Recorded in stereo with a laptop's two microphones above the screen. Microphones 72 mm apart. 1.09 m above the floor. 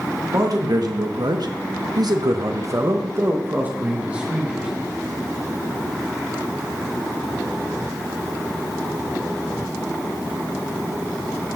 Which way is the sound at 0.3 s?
55° right (ahead or behind).